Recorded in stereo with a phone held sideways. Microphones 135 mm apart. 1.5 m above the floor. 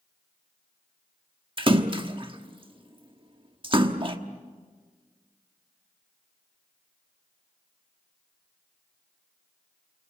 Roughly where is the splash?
Right.